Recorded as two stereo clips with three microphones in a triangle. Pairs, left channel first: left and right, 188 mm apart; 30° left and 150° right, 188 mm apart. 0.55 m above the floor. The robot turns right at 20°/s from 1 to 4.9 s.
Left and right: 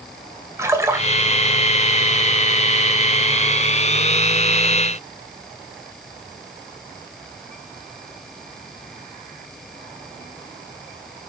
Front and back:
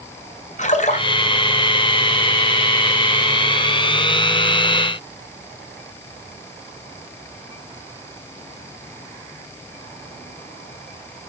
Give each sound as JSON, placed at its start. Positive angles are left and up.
{"t": 0.6, "sound": "a splash", "azimuth_deg": -15, "distance_m": 2.0}